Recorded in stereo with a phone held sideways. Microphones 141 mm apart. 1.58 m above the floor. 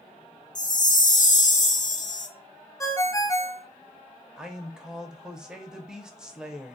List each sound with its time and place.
0.6 s a chime: 65° left (ahead or behind), 0.5 m
2.8 s a ringtone: 20° left (ahead or behind), 0.5 m
4.4 s a man speaking: 5° right (ahead or behind), 0.7 m